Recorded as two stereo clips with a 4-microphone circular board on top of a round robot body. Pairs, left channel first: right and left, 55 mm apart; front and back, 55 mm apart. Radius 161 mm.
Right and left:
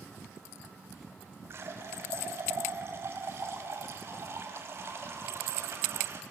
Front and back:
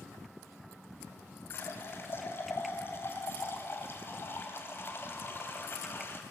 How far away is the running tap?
About 3 m.